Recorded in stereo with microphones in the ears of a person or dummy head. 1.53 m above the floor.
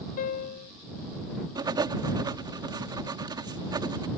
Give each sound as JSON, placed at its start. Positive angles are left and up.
{"t": 0.2, "sound": "a piano", "side_deg": 45}
{"t": 1.6, "sound": "writing", "side_deg": -15}